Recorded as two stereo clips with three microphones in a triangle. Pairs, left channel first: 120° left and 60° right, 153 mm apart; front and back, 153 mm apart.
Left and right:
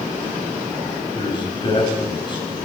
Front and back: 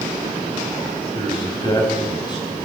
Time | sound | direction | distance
1.1 | a man speaking | 60° left | 7 m